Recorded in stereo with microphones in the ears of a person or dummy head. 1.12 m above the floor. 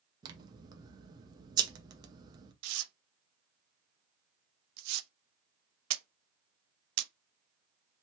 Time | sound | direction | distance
0.2 | scissors | 20° right (ahead or behind) | 0.7 m
2.6 | tearing paper | 85° right | 0.5 m